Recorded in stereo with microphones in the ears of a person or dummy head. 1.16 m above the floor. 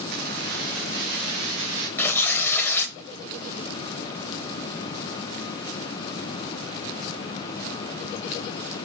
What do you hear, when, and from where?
0.1 s keys jangling: 60° right (ahead or behind), 0.7 m; by 1.9 s 65° right (ahead or behind), 2.5 m
2.0 s tearing paper: 10° left (ahead or behind), 1.1 m